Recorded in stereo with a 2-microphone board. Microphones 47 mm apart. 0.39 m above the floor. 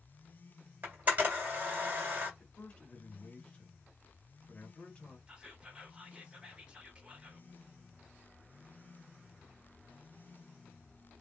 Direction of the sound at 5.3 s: 20° right (ahead or behind).